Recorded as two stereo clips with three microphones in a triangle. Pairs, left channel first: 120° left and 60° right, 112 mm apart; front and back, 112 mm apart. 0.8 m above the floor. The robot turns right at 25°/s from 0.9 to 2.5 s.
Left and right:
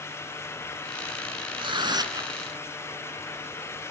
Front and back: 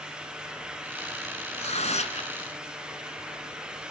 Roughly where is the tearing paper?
Ahead.